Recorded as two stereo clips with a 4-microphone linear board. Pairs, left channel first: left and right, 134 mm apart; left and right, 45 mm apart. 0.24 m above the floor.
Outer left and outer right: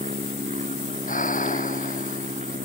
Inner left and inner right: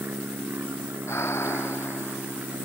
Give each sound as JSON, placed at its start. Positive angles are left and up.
{"t": 0.0, "sound": "an aircraft", "side_deg": -60}
{"t": 1.1, "sound": "breathing", "side_deg": 85}